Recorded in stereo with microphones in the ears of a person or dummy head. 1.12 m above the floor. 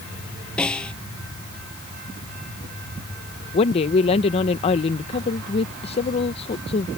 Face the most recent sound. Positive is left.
turn(degrees=30)  # may be behind; listen again after turning